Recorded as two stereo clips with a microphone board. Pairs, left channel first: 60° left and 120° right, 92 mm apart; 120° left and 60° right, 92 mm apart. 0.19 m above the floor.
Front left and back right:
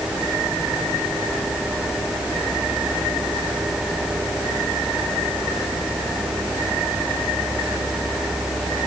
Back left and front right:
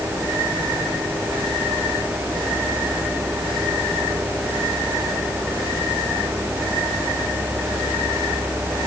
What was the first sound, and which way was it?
Only background noise.